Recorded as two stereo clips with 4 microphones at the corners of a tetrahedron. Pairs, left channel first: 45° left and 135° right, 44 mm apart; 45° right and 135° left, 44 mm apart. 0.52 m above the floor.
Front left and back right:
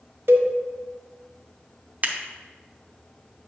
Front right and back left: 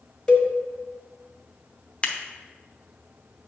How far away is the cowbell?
About 1.4 m.